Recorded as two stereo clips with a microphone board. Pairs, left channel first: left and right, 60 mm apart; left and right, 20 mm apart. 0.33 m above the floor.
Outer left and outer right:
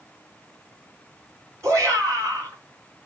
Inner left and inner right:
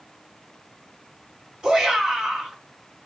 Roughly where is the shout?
Right.